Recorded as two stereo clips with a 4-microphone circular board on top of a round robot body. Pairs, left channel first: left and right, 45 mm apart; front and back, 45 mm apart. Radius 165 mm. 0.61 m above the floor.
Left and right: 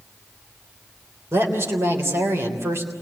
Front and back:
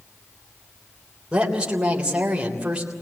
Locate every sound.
1.3 s a woman speaking: 110° right, 3.5 m